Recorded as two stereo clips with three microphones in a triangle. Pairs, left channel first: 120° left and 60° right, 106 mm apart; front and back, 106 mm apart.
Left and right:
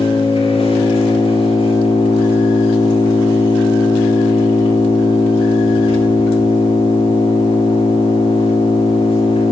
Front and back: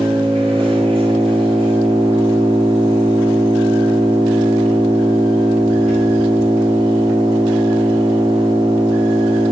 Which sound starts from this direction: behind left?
An engine running, at 0.0 s.